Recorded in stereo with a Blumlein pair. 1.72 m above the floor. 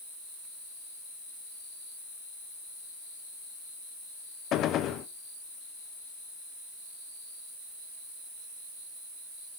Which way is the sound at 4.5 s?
30° left.